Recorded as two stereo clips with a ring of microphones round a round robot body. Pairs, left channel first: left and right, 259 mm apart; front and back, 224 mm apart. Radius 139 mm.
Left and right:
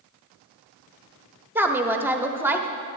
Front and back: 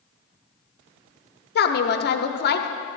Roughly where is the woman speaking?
Ahead.